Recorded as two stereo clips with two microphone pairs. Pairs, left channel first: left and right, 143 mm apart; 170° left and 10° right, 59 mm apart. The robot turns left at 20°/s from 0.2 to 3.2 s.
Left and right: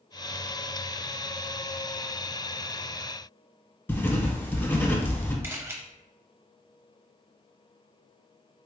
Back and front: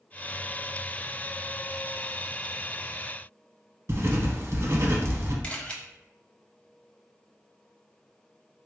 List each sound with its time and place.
3.9 s writing: 20° left, 0.7 m
5.4 s a camera shutter: 145° right, 0.6 m